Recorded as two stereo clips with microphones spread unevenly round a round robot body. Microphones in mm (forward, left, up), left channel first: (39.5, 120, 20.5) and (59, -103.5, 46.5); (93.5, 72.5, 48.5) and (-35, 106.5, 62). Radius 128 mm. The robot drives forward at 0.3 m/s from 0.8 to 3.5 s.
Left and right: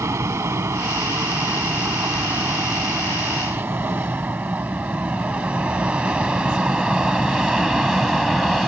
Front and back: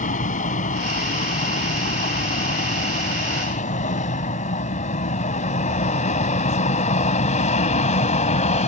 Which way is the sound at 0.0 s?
10° right.